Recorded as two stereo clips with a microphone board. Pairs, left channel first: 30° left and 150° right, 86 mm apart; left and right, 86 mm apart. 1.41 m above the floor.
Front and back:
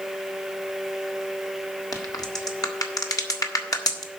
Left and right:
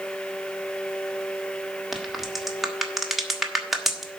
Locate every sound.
1.9 s a crack: straight ahead, 1.2 m